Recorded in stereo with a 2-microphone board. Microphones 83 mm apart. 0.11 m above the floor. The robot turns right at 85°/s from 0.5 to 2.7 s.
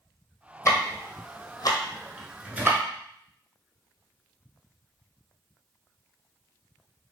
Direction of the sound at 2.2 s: 15° right (ahead or behind).